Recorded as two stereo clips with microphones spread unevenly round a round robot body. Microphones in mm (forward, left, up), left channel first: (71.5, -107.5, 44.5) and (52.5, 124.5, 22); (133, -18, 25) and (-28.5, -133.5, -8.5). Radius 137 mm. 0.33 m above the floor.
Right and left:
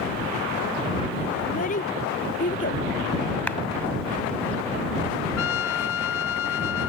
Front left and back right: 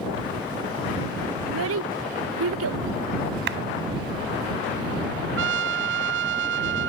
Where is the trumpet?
125° right.